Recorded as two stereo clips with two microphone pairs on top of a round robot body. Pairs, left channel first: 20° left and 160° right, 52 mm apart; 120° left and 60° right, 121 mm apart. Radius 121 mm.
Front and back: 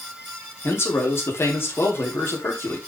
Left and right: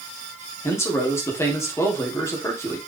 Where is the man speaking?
55° left, 3 m.